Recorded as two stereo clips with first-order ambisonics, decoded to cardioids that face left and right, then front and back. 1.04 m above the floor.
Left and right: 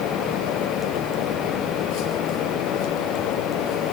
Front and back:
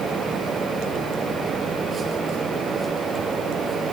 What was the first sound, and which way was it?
Only background noise.